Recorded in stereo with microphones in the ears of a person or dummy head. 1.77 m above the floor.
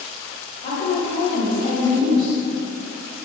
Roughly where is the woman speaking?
Left.